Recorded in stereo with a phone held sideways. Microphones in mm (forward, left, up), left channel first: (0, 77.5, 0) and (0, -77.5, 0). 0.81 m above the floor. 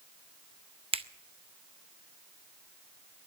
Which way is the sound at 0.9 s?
40° right (ahead or behind).